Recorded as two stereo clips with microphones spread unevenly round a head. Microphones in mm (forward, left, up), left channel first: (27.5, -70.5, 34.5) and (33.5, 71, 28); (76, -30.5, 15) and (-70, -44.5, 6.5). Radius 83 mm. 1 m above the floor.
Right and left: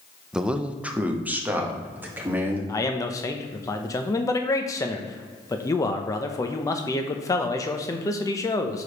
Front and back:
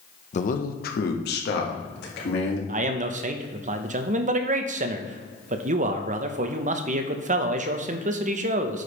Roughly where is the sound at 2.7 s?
Behind.